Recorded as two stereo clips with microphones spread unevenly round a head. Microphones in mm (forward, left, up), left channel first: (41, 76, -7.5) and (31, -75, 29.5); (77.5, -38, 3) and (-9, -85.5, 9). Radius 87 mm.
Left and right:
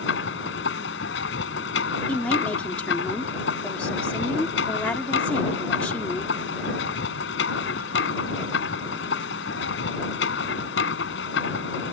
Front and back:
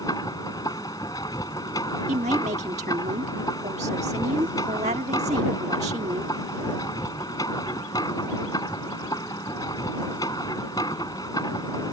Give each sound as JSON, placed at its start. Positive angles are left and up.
{"t": 0.0, "sound": "a machine running", "azimuth_deg": 100}
{"t": 2.1, "sound": "a woman speaking", "azimuth_deg": 170}